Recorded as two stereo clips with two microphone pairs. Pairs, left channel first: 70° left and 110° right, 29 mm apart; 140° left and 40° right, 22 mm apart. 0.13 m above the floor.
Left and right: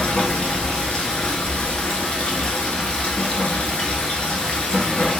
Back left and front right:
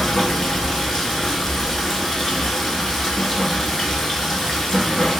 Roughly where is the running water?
Left.